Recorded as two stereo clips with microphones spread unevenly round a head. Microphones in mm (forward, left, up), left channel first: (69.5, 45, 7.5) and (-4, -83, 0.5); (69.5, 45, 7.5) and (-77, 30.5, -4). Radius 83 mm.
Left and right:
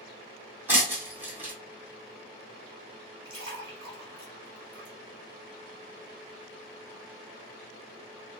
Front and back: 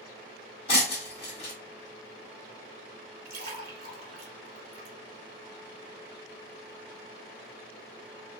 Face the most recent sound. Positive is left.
turn(degrees=-165)